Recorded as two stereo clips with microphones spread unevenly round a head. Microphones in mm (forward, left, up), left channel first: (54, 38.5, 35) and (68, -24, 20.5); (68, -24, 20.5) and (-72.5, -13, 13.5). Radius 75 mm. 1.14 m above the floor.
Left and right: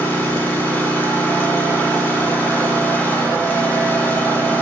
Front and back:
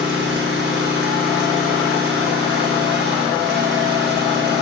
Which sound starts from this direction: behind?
An engine running, at 0.0 s.